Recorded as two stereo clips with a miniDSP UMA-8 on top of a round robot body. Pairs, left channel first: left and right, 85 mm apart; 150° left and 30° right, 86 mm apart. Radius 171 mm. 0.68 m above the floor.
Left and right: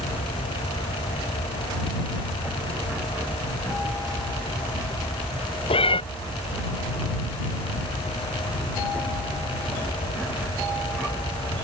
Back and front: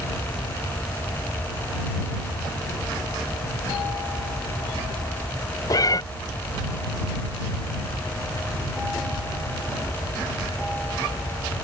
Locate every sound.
5.7 s a cat meowing: 100° left